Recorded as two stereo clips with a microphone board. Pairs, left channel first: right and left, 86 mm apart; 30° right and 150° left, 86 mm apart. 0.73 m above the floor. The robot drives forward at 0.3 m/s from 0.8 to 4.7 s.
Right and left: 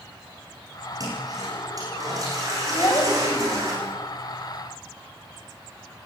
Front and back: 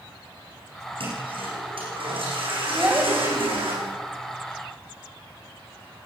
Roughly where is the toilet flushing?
Behind left.